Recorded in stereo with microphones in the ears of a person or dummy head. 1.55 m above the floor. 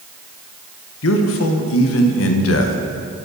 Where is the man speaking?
75° left (ahead or behind), 1.1 m.